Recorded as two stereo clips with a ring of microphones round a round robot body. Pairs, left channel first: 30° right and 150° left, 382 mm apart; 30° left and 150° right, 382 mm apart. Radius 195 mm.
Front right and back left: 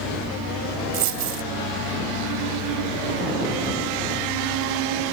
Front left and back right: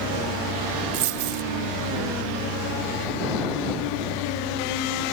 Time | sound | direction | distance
0.9 | a dropped coin | 175° right | ?